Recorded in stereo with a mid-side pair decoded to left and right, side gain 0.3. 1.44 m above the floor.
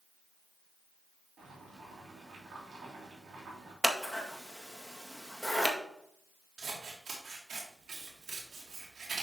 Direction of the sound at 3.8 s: 10° right.